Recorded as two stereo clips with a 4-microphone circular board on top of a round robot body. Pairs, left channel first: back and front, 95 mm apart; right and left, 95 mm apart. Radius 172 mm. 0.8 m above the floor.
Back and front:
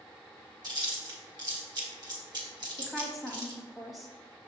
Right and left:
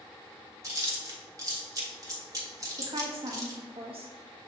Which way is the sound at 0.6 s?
40° left.